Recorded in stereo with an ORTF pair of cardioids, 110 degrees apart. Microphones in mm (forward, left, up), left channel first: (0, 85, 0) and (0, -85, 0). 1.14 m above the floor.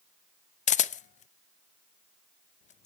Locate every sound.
0.7 s a camera shutter: 45° left, 0.7 m